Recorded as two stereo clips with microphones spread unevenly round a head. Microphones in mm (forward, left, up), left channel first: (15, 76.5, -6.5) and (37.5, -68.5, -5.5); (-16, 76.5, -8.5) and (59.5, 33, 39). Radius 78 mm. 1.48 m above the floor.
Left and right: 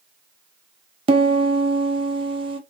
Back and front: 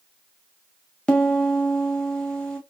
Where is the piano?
90° right, 0.9 m.